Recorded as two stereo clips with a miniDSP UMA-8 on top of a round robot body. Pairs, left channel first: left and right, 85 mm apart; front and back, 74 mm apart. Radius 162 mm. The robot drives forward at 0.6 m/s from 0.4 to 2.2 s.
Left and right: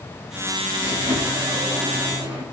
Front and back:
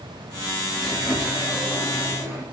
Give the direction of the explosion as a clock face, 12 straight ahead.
I don't hear an explosion.